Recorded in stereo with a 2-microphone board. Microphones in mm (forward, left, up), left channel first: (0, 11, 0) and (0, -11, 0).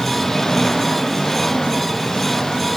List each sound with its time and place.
0.0 s an engine running: 20° left (ahead or behind)